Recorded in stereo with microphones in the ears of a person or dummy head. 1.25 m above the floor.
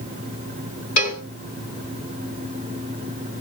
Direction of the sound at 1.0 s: 35° left (ahead or behind).